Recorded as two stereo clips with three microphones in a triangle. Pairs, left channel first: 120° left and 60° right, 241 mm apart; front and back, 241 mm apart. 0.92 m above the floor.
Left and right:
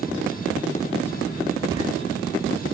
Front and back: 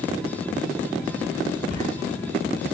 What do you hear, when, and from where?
1.7 s footsteps: 10° left, 6 m